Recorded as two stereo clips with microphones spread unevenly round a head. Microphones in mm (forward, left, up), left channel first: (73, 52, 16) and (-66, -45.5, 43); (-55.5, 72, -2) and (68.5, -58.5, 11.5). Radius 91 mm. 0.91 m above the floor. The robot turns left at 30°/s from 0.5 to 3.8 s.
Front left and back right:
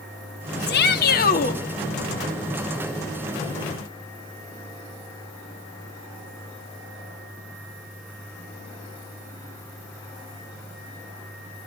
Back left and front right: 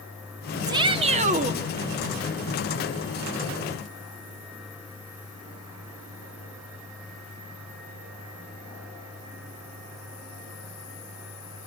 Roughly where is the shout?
Ahead left.